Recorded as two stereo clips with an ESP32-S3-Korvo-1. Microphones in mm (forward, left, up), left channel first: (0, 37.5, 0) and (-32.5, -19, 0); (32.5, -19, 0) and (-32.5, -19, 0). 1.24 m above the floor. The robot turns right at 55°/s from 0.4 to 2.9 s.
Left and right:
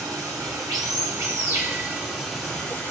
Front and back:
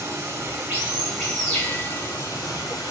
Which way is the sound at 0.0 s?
135° right.